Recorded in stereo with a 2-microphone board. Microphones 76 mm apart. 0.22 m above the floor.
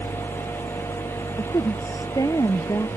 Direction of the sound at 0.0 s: 65° left (ahead or behind).